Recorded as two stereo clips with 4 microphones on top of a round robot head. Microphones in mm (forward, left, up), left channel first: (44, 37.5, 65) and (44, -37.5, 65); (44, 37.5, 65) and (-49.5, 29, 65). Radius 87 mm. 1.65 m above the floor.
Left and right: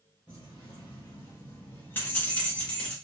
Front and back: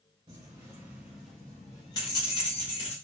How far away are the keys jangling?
About 0.9 m.